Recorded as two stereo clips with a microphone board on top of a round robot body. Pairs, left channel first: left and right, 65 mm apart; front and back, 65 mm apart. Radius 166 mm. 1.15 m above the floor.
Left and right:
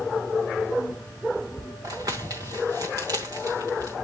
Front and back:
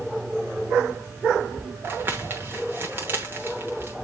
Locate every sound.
1.8 s crumpling: 130° right, 0.9 m